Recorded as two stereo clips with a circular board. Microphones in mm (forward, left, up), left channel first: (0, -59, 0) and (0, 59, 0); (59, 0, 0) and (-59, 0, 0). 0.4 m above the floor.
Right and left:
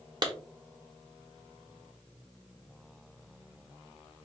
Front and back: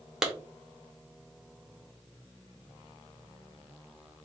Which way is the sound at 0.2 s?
95° left.